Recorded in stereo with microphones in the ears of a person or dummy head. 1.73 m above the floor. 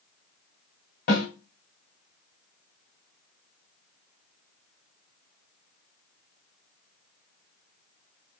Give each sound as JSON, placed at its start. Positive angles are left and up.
{"t": 1.1, "sound": "a snare drum", "side_deg": 60, "distance_m": 2.5}